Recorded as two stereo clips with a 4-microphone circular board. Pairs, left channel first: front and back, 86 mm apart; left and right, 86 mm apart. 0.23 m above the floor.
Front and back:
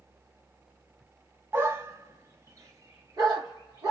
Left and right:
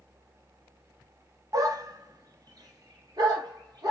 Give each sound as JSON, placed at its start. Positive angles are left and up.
{"t": 1.5, "sound": "a dog barking", "azimuth_deg": -125, "distance_m": 0.5}